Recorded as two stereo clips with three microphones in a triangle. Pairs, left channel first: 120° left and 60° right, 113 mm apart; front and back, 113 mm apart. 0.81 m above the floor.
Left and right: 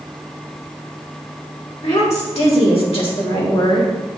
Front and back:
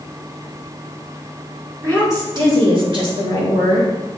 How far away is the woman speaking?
About 3 m.